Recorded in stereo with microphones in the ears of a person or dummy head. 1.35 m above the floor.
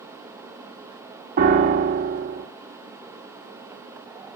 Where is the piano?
50° right (ahead or behind), 1.1 m.